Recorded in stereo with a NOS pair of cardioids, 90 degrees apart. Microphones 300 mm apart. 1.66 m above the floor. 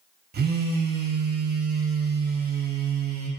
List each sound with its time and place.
0.3 s a phone buzzing: 35° right, 0.5 m